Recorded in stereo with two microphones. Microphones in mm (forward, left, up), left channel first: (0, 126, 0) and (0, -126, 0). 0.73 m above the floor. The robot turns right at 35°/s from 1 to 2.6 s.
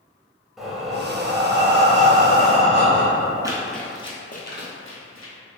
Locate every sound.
0.6 s breathing: straight behind, 0.7 m; by 3.5 s 125° right, 0.7 m
3.4 s running footsteps: 15° right (ahead or behind), 0.7 m; by 5.3 s 60° left (ahead or behind), 1.4 m